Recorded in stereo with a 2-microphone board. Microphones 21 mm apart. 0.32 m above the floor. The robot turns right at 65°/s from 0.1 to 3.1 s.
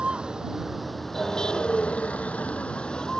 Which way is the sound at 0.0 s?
55° right.